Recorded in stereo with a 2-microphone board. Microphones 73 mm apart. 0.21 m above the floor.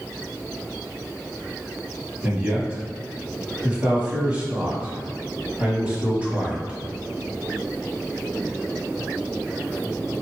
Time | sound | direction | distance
2.2 | a man speaking | 15° right (ahead or behind) | 1.1 m